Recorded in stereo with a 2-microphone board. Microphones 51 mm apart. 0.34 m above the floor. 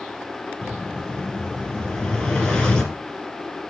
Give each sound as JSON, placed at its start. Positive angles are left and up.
{"t": 0.6, "sound": "an explosion", "side_deg": 20, "distance_m": 4.0}